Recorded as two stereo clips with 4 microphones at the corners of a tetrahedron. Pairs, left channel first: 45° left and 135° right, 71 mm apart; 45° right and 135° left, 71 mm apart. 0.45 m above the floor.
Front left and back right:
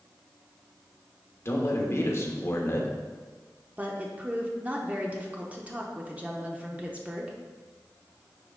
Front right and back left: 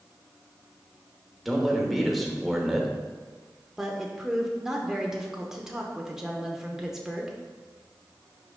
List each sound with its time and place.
1.4 s a man speaking: 45° left, 1.1 m
3.8 s a woman speaking: 155° right, 0.7 m